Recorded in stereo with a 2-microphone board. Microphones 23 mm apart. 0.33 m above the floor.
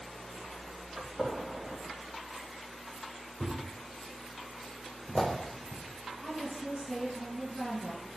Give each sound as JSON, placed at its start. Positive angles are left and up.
{"t": 1.0, "sound": "a gunshot", "side_deg": -45, "distance_m": 2.0}
{"t": 3.4, "sound": "a thud", "side_deg": 15, "distance_m": 3.5}
{"t": 6.2, "sound": "a woman speaking", "side_deg": -20, "distance_m": 4.0}